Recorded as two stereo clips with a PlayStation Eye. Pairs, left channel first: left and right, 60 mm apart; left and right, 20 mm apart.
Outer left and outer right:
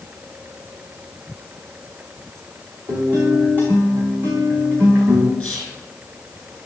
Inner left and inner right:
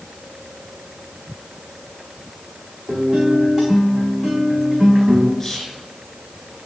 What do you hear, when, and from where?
2.9 s a guitar: 30° right (ahead or behind), 4 m
5.4 s whispering: 10° left (ahead or behind), 1.7 m